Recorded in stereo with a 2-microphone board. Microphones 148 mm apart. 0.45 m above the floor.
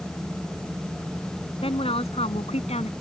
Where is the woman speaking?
40° left (ahead or behind); by 2.9 s 45° left (ahead or behind).